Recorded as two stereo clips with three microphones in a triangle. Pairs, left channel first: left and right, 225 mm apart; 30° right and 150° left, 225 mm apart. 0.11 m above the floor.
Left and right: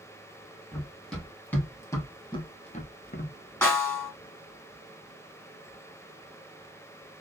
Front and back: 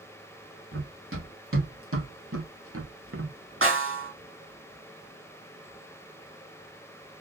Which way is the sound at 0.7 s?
Straight behind.